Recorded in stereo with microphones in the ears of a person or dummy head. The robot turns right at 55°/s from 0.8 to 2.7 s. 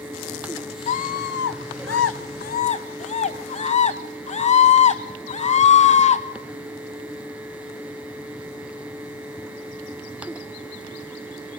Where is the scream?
45° left, 1.8 m; by 6.2 s 145° left, 1.8 m.